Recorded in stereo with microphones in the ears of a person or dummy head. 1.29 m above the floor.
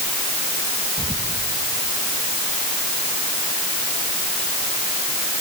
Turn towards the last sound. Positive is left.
turn(degrees=-10)  # may be behind; listen again after turning